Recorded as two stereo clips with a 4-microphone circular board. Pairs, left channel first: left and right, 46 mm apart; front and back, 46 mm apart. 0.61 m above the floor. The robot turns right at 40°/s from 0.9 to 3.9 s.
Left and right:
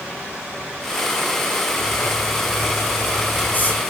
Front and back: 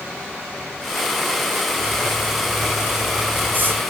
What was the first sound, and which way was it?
Writing, 70° left.